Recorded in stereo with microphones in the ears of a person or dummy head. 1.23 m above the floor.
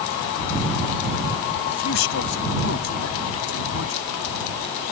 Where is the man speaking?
65° left (ahead or behind).